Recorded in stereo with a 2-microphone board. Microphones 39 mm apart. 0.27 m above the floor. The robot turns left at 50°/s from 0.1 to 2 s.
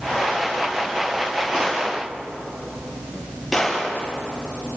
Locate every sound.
1.5 s a gunshot: 20° right (ahead or behind), 6.5 m; by 3.9 s centre (ahead or behind), 6.5 m